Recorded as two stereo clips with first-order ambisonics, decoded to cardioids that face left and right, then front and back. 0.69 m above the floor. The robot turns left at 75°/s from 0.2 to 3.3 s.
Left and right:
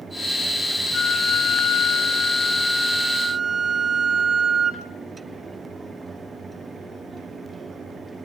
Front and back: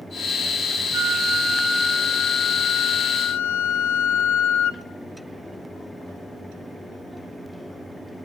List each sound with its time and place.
0.9 s a flute: 160° left, 0.5 m; by 4.8 s 15° right, 0.5 m